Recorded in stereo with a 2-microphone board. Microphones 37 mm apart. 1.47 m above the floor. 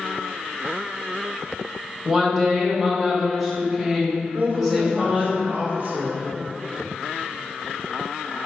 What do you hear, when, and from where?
2.0 s a woman speaking: 5° right (ahead or behind), 1.3 m
4.3 s a woman speaking: 45° right (ahead or behind), 1.0 m